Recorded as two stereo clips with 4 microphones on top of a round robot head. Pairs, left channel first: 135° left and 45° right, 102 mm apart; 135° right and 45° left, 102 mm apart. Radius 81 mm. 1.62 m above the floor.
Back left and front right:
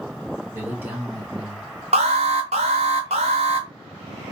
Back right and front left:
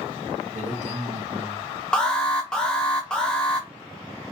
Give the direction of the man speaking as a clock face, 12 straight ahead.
11 o'clock.